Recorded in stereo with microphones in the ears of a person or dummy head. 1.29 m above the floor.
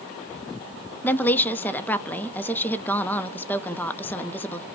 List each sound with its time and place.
1.0 s a woman speaking: 15° left (ahead or behind), 0.6 m